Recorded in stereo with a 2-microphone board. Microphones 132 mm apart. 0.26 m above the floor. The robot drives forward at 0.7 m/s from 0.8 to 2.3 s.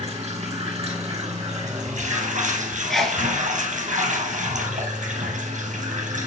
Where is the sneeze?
Centre (ahead or behind), 3.5 m.